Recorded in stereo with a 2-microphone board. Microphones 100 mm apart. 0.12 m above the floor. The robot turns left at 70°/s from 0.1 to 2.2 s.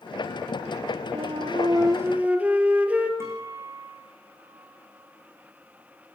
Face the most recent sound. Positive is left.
turn(degrees=-25)  # may be behind; listen again after turning